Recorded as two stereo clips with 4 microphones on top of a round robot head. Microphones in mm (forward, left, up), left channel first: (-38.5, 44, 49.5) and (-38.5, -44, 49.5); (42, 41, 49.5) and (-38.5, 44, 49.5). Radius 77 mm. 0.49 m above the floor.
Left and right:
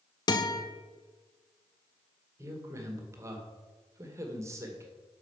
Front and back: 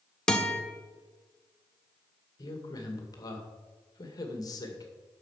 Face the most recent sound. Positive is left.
turn(degrees=-35)